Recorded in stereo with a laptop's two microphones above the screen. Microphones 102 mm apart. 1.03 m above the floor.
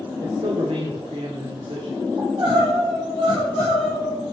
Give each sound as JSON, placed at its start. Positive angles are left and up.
{"t": 0.2, "sound": "a man speaking", "side_deg": -85, "distance_m": 2.5}
{"t": 2.2, "sound": "crying", "side_deg": -60, "distance_m": 6.0}